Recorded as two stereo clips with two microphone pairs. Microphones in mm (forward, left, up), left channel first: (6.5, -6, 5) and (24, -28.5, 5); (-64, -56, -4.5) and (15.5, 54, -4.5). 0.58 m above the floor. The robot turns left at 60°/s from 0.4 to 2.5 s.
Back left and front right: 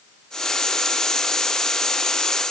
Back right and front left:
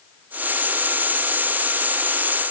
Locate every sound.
Only background noise.